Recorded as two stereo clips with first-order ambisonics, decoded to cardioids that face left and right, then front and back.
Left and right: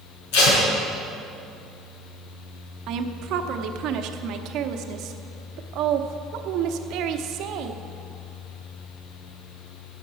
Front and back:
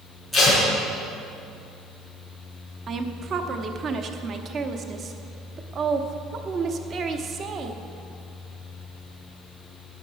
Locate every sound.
0.3 s tape being pulled: 90° left, 5 m
2.9 s a woman speaking: 120° right, 0.9 m